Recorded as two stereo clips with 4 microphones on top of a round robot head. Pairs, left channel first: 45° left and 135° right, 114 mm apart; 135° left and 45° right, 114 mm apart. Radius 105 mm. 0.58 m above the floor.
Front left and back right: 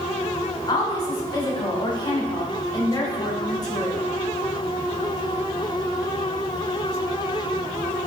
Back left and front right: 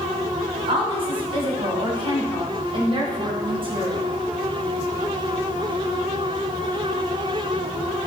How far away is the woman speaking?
About 3 m.